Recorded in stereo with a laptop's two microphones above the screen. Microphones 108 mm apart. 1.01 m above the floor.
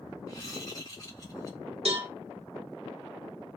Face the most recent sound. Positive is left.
turn(degrees=-70)  # may be behind; listen again after turning